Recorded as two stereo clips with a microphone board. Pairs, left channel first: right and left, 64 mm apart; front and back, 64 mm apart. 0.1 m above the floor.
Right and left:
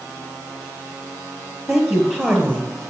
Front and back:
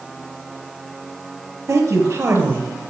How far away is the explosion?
I don't hear an explosion.